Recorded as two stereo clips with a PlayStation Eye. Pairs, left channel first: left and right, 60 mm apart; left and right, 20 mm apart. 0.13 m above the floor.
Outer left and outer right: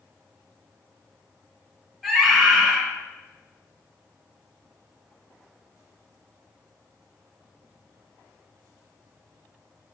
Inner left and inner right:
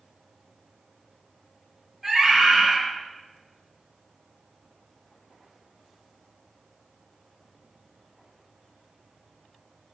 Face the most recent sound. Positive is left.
turn(degrees=-5)  # may be behind; listen again after turning